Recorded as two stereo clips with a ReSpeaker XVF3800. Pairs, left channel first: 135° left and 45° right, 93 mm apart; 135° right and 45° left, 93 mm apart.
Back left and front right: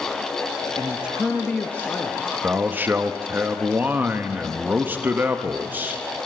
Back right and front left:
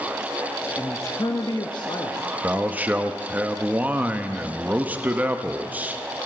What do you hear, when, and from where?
0.8 s a man speaking: 75° right, 0.6 m; by 2.3 s 165° right, 1.1 m
2.4 s a man speaking: 5° right, 0.7 m